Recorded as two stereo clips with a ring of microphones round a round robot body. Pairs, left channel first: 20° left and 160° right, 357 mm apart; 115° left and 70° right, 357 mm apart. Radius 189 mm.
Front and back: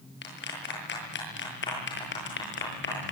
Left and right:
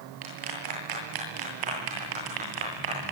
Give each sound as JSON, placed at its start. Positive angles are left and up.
{"t": 0.2, "sound": "a clap", "azimuth_deg": -40, "distance_m": 9.0}